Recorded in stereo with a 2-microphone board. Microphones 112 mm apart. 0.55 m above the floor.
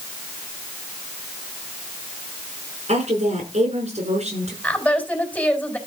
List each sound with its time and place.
2.9 s a woman speaking: 75° right (ahead or behind), 6 m
4.6 s a woman speaking: 10° left (ahead or behind), 4 m